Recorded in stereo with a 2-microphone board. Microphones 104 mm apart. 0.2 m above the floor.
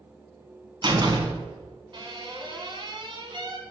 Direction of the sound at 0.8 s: 45° right (ahead or behind).